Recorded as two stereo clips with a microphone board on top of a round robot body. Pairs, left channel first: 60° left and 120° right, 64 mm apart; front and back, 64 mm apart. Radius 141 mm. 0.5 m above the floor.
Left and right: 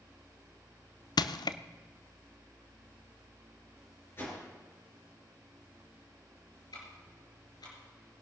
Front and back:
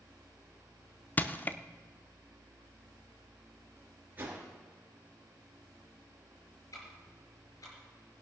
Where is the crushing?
65° left, 0.5 m.